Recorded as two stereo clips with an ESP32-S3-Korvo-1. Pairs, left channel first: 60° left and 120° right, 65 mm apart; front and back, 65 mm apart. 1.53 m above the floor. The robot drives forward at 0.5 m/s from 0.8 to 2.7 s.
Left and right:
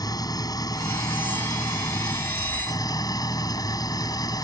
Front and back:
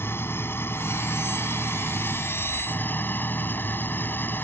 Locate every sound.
0.0 s an engine running: 55° left; by 4.5 s 60° left